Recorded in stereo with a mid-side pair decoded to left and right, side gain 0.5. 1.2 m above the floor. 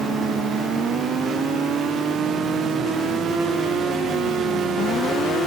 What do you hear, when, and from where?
Only background noise.